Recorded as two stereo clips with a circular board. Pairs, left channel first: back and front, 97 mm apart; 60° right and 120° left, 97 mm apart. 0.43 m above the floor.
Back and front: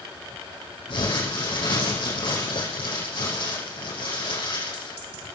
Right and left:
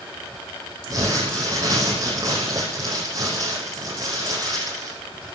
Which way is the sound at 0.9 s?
170° left.